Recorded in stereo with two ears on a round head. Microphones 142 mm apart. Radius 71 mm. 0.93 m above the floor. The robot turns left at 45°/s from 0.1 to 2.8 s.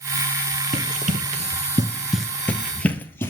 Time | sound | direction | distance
0.7 | running footsteps | 45° right (ahead or behind) | 1.9 m